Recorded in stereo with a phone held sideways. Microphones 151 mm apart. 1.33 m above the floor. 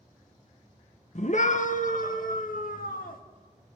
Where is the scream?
50° left (ahead or behind), 1.2 m; by 3.2 s 75° left (ahead or behind), 2.5 m.